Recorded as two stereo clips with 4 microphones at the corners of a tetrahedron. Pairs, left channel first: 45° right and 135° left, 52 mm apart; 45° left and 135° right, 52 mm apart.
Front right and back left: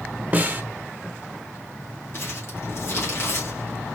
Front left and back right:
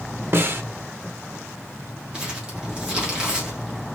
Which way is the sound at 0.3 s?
170° right.